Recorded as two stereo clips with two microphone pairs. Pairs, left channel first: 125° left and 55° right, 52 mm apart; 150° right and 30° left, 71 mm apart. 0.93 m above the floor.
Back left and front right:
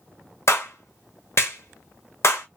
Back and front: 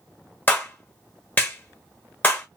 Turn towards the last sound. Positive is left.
turn(degrees=150)